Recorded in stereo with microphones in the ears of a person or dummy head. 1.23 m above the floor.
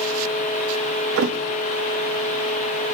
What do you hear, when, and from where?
1.2 s a thud: 50° right (ahead or behind), 0.7 m